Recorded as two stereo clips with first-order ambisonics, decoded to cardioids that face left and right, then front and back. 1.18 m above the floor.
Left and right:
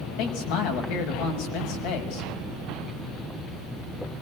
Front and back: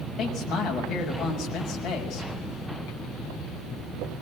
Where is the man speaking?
70° left, 6 m.